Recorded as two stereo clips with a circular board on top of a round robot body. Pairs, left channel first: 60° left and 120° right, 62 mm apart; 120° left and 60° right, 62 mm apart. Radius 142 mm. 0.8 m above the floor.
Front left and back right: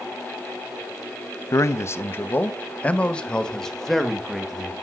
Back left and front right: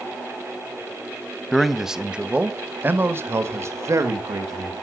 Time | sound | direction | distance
1.5 | a man speaking | 35° left | 1.3 m